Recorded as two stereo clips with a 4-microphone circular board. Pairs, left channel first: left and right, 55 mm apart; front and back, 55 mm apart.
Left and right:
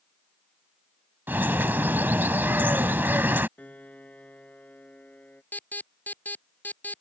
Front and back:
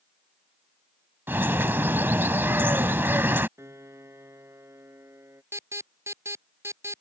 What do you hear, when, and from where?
1.3 s a bird: 135° right
3.6 s a piano: 150° left
5.5 s an alarm: 150° left